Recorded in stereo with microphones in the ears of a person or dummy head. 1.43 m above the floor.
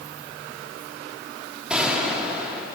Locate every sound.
1.7 s a gunshot: 5° right (ahead or behind), 1.5 m